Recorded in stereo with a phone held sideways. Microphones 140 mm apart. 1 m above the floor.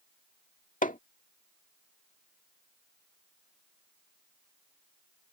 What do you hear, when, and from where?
0.8 s hammering: 70° left (ahead or behind)